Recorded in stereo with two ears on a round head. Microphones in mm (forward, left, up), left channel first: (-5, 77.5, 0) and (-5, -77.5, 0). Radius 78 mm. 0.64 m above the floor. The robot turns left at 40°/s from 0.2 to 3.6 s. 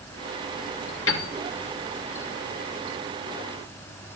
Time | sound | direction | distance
1.1 | a piano | 80° left | 2.5 m